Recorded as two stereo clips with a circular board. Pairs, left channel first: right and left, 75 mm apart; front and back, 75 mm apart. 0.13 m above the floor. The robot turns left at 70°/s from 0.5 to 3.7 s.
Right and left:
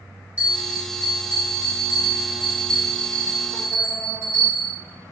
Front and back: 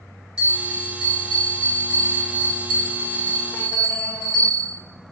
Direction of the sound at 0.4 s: 125° left.